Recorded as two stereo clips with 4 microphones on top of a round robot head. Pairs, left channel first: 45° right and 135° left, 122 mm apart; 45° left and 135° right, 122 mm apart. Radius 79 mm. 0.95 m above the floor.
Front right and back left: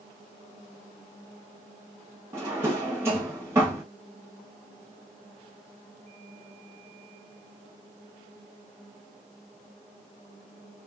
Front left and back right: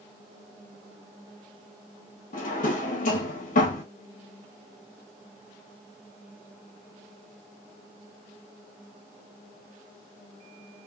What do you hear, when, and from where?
2.3 s a drawer: 65° left, 1.0 m